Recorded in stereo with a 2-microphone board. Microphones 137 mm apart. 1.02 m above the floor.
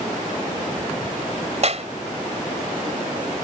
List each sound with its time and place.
1.6 s a clap: 55° right (ahead or behind)